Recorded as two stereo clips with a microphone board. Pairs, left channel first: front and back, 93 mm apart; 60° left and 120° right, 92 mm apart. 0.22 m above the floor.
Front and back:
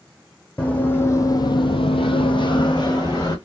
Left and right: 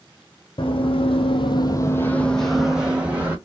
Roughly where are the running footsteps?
Left.